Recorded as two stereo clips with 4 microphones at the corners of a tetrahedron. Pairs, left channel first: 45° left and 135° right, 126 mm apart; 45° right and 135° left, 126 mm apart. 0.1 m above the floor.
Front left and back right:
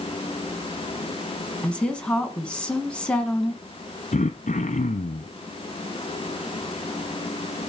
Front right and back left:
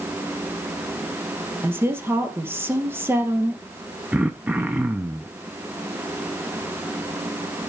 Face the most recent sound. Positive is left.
turn(degrees=55)